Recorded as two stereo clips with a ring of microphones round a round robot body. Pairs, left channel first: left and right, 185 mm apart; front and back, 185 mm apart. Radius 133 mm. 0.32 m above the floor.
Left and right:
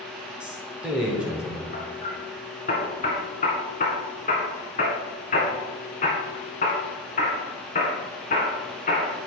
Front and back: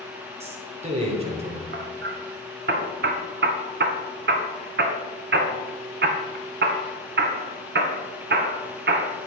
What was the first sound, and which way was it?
A man speaking, 170° right.